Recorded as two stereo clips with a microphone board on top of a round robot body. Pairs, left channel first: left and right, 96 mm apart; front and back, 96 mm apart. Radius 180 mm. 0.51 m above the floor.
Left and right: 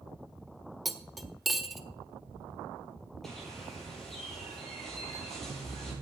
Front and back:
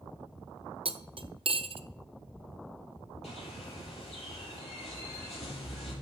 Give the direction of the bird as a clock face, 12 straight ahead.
12 o'clock.